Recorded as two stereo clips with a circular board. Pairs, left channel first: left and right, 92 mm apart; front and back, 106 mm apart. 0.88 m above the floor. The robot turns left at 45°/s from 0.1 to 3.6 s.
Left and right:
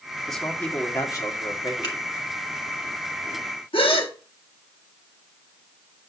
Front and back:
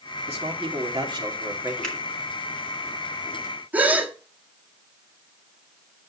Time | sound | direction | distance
0.3 | a man speaking | straight behind | 2.5 m
1.8 | a finger snap | 85° left | 3 m
3.7 | a gasp | 105° left | 1.4 m